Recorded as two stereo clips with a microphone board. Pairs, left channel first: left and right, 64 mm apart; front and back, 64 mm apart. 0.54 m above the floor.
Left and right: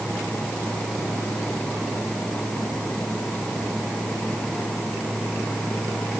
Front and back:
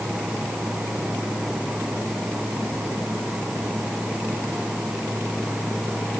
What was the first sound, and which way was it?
Only background noise.